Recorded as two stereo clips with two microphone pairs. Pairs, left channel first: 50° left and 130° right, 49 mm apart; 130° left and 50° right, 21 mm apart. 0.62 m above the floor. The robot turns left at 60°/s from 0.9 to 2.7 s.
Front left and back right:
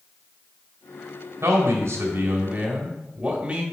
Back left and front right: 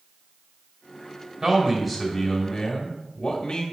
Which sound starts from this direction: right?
A man speaking, at 1.4 s.